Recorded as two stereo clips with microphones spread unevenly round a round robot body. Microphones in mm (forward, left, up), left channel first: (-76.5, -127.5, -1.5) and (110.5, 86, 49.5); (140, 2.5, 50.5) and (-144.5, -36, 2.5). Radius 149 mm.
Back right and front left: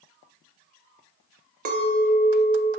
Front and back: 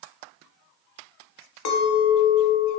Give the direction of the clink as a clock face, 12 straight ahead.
12 o'clock.